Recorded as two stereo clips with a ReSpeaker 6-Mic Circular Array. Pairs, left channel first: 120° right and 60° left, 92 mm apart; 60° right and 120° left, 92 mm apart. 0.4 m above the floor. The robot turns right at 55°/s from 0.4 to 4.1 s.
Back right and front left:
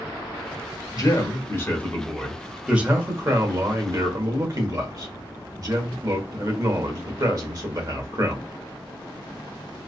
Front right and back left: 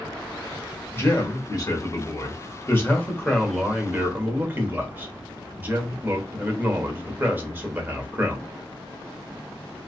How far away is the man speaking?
About 1.1 m.